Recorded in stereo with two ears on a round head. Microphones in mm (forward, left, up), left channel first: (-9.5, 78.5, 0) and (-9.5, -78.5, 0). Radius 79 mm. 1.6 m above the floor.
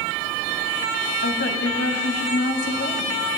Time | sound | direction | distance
1.2 | a woman speaking | 80° left | 2 m